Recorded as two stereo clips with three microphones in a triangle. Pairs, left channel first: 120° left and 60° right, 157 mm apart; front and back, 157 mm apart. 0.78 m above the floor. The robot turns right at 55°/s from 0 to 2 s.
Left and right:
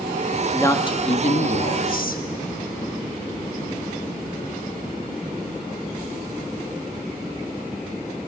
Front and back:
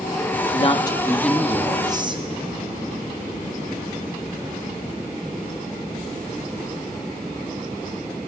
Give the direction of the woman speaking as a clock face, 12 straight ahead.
11 o'clock.